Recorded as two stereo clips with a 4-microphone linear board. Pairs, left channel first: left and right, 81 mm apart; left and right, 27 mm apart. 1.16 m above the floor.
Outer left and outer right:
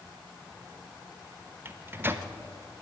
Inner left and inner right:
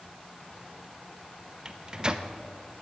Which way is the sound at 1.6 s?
30° right (ahead or behind).